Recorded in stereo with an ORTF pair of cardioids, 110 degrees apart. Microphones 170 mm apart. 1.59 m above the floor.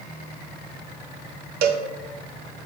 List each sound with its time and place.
1.6 s a cowbell: 65° right, 1.2 m